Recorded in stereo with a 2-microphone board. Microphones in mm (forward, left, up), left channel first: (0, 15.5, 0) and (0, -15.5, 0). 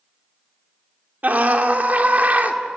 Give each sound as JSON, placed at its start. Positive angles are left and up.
{"t": 1.2, "sound": "a scream", "side_deg": -55, "distance_m": 2.5}